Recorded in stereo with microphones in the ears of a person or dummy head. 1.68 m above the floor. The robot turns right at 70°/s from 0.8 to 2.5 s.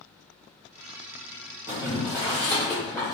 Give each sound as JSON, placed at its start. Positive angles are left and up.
{"t": 1.7, "sound": "boiling", "side_deg": -30, "distance_m": 1.8}